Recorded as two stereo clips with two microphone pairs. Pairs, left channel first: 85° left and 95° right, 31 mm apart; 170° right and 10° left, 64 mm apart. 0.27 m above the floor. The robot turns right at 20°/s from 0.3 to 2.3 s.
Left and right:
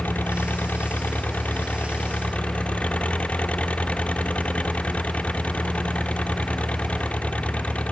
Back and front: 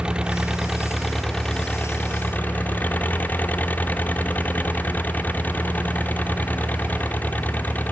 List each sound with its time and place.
0.0 s an engine running: 90° left; by 7.9 s 130° left